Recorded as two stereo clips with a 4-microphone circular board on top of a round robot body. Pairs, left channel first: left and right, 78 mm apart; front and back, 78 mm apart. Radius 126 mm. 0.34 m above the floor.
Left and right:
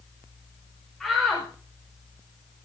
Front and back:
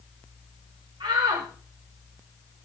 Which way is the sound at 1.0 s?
175° left.